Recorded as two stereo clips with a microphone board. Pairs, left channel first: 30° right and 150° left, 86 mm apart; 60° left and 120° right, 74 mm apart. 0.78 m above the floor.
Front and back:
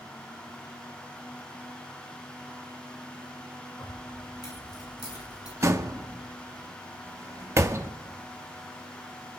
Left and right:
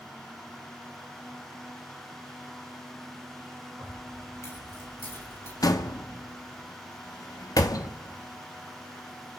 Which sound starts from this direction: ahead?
Keys jangling, at 3.8 s.